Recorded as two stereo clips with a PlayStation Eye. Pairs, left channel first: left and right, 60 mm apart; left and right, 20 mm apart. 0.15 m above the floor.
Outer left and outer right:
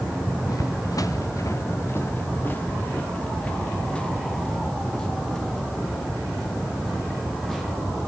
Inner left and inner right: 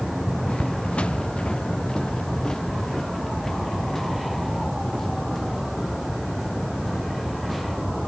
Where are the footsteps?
85° left, 1.3 m; by 7.6 s 5° left (ahead or behind), 6 m.